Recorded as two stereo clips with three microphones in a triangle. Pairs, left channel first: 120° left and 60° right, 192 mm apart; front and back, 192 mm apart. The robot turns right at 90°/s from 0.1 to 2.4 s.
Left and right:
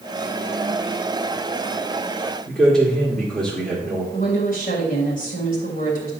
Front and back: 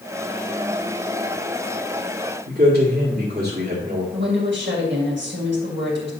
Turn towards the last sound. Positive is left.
turn(degrees=165)